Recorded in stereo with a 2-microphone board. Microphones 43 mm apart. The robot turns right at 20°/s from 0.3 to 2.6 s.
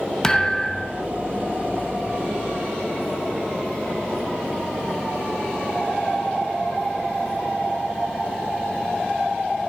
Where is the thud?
15° left (ahead or behind), 0.8 m; by 1.0 s 10° left (ahead or behind), 0.8 m.